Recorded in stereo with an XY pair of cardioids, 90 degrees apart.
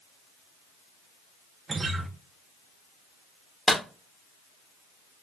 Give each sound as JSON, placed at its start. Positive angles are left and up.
{"t": 1.7, "sound": "a guitar", "azimuth_deg": -35, "distance_m": 0.7}
{"t": 3.7, "sound": "a clap", "azimuth_deg": 5, "distance_m": 1.1}